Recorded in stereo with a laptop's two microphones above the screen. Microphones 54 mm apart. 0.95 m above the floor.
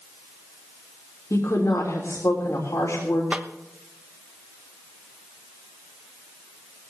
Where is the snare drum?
20° right (ahead or behind), 1.1 m.